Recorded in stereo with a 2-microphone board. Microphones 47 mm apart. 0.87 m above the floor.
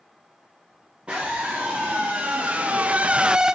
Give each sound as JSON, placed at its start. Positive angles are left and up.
{"t": 1.1, "sound": "a scream", "side_deg": -25, "distance_m": 2.0}